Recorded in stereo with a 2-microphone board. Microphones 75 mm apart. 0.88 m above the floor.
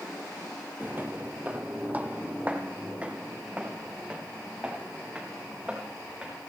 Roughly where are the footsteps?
Right.